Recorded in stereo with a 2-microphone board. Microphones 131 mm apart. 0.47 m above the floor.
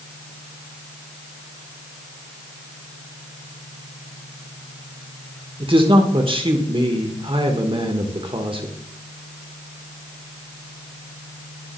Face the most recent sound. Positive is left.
turn(degrees=-40)  # may be behind; listen again after turning